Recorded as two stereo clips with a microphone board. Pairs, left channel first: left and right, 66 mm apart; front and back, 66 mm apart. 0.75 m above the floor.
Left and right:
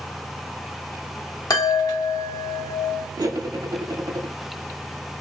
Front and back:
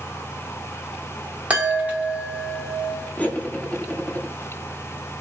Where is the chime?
110° left, 0.7 m.